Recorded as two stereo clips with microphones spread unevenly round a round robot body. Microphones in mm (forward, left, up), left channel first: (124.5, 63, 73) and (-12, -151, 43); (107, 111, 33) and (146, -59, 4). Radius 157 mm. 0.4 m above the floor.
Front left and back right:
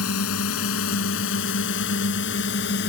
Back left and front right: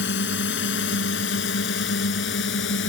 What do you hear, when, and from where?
0.0 s a drone: 100° left; by 2.9 s 115° left